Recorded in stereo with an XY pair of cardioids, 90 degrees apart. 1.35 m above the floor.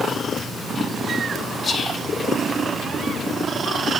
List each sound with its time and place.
1.6 s whispering: 50° left, 3.5 m